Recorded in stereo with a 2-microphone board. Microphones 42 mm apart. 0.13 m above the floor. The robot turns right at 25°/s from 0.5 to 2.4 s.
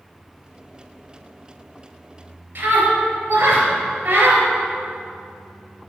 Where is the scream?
55° right (ahead or behind), 3 m.